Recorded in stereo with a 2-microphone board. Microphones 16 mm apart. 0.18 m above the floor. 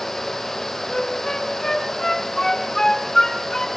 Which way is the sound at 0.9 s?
35° left (ahead or behind).